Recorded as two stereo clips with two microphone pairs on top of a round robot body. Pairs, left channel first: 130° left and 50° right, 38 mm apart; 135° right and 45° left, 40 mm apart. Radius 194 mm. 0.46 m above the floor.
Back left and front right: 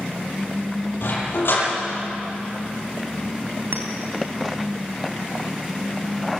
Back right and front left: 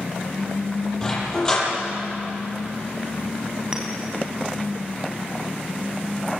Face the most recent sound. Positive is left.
turn(degrees=-30)